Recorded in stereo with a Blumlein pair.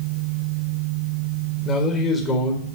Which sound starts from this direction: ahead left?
A man speaking, at 1.6 s.